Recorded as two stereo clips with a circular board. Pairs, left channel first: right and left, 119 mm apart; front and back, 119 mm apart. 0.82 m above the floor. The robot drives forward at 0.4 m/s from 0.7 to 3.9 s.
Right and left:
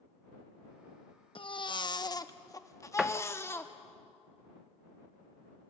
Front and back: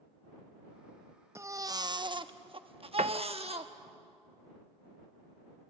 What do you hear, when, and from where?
1.4 s a baby crying: 120° right, 0.6 m; by 3.7 s 160° right, 1.3 m
3.0 s a door slam: 175° left, 0.6 m; by 3.2 s straight behind, 0.6 m